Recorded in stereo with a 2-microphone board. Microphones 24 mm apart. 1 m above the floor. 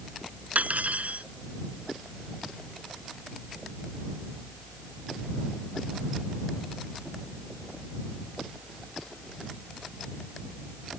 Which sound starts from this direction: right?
Cutlery clinking, at 0.6 s.